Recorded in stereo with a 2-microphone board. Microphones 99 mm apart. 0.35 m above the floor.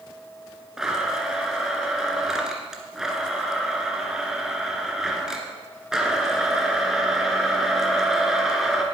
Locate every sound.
0.8 s a blender: 5° right (ahead or behind), 1.9 m